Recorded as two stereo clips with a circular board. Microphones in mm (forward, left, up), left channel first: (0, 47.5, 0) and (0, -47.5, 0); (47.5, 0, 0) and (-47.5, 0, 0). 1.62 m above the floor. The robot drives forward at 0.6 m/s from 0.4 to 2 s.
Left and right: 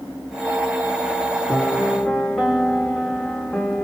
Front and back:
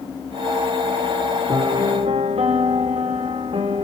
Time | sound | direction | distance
1.5 | a piano | straight behind | 1.9 m